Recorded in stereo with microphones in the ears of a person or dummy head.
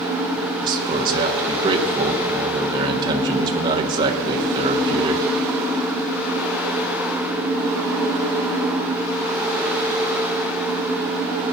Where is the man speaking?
25° right (ahead or behind), 1.2 m.